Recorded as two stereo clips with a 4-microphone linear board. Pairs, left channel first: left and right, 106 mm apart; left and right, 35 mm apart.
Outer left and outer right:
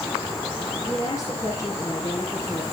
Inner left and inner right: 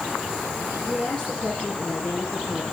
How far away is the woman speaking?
About 6 m.